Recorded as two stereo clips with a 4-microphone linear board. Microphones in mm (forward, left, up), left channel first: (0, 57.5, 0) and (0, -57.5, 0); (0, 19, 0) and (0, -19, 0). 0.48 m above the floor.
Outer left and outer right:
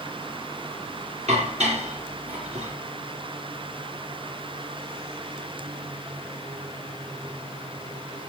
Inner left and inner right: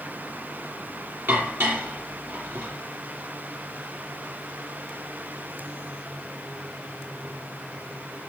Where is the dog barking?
I don't hear a dog barking.